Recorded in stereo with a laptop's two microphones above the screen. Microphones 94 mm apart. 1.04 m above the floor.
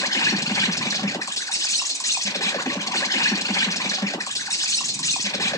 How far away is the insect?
About 0.7 m.